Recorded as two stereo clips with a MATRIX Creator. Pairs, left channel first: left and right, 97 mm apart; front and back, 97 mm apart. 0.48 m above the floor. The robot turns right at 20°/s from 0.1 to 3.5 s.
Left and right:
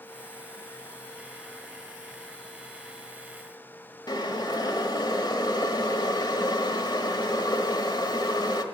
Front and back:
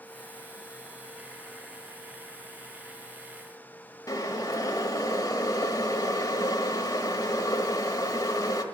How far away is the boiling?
About 1.3 m.